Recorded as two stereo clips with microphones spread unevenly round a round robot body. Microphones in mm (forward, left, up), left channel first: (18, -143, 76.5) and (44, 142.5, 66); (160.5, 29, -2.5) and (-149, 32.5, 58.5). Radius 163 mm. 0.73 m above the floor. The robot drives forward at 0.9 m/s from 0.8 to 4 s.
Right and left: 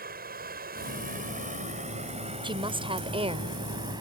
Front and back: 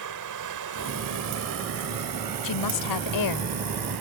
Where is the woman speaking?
10° left; by 3.6 s 15° left.